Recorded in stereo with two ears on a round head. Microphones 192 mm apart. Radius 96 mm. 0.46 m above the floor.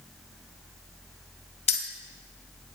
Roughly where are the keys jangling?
Left.